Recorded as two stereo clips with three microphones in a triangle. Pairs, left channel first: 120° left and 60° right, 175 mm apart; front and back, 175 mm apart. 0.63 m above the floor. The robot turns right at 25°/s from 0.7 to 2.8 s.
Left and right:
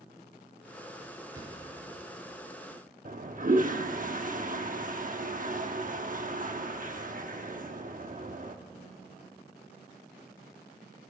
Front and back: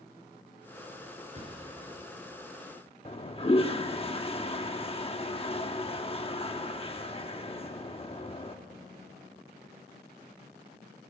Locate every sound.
1.3 s a thud: 130° right, 4.5 m; by 1.9 s 115° right, 4.5 m
3.0 s a toilet flushing: 45° right, 1.0 m